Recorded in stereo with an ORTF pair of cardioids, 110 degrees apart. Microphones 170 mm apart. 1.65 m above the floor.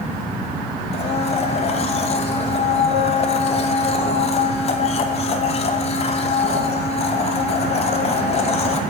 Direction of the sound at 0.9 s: 40° left.